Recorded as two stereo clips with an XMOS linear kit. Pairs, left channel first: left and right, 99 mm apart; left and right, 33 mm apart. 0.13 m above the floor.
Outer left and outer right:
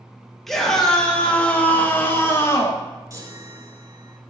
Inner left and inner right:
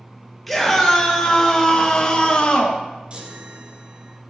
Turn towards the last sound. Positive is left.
turn(degrees=-35)  # may be behind; listen again after turning